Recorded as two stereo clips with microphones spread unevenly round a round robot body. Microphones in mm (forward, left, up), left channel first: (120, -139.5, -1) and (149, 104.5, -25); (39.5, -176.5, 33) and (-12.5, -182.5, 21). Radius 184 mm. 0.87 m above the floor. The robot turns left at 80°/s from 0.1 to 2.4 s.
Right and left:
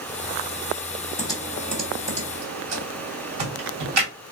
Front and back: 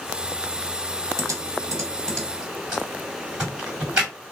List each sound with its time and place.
1.2 s typing on a keyboard: 150° right, 1.2 m; by 4.1 s 115° left, 1.2 m